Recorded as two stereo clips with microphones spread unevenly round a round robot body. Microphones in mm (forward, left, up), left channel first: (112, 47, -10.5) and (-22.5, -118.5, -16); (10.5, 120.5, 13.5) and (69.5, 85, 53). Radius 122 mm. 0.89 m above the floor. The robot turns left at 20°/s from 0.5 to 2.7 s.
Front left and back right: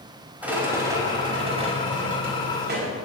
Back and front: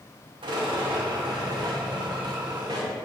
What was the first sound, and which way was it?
A rattle, 45° right.